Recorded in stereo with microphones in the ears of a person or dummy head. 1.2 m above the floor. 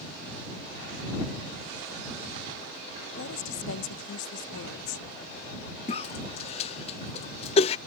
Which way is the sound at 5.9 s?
30° left (ahead or behind).